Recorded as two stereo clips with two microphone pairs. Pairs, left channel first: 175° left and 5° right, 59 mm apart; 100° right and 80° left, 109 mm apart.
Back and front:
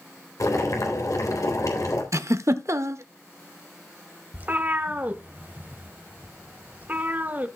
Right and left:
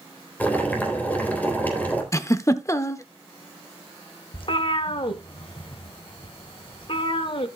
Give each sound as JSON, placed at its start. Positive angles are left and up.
{"t": 0.4, "sound": "boiling", "azimuth_deg": -175, "distance_m": 3.0}
{"t": 2.1, "sound": "a giggle", "azimuth_deg": -40, "distance_m": 0.8}
{"t": 4.3, "sound": "a cat meowing", "azimuth_deg": -65, "distance_m": 1.1}